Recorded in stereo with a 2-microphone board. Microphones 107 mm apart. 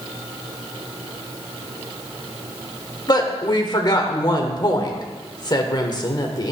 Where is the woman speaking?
40° left (ahead or behind), 1.3 m.